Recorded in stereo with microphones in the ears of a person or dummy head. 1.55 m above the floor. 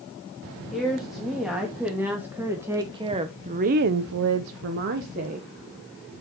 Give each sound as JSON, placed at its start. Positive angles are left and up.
{"t": 0.7, "sound": "a woman speaking", "side_deg": 0, "distance_m": 3.0}